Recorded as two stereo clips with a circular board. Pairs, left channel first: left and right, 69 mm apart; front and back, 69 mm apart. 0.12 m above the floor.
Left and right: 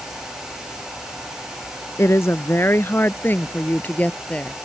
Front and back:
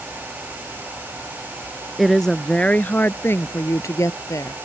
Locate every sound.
2.0 s a woman speaking: 90° left; by 4.6 s 20° left